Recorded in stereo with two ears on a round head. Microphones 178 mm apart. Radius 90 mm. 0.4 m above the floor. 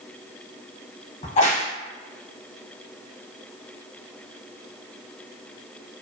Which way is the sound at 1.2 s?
35° left (ahead or behind).